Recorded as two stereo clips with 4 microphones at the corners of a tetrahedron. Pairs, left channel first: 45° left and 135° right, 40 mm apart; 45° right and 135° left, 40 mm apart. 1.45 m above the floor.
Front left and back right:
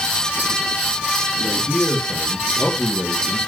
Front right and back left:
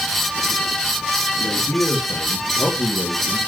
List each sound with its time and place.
1.4 s a man speaking: 40° right, 2.5 m; by 3.4 s 80° right, 1.4 m